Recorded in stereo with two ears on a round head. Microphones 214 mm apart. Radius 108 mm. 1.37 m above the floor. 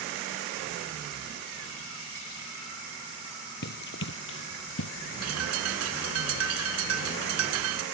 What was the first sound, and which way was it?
Running footsteps, 45° left (ahead or behind).